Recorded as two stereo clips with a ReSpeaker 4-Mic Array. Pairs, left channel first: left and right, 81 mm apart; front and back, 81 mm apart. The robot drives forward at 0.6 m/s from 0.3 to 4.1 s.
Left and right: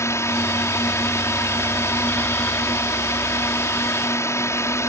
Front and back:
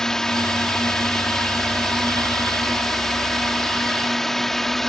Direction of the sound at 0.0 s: 80° left.